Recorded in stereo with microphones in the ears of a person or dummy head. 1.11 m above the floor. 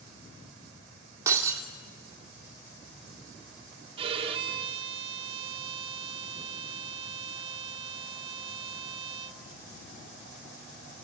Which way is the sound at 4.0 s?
30° right (ahead or behind).